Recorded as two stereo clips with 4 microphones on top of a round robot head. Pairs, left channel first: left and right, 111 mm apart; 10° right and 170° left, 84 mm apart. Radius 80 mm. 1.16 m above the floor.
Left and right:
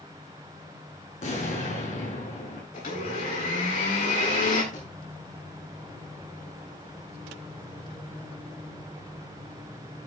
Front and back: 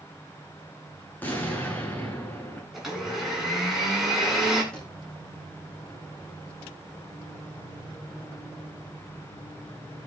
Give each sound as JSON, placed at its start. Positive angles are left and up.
{"t": 1.2, "sound": "an explosion", "azimuth_deg": 60, "distance_m": 7.0}
{"t": 2.7, "sound": "a blender", "azimuth_deg": 85, "distance_m": 9.5}
{"t": 4.7, "sound": "a thud", "azimuth_deg": 70, "distance_m": 7.5}